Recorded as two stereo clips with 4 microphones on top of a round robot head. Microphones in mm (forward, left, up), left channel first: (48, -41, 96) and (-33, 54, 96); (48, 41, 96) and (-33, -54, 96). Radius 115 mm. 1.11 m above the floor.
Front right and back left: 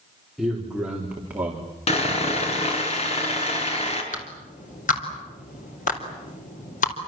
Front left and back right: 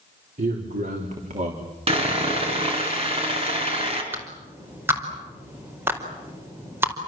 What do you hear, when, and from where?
0.4 s a man speaking: 140° right, 4 m; by 1.7 s 155° right, 3.5 m
1.9 s sawing: 90° right, 5 m
4.1 s a clap: 60° right, 4.5 m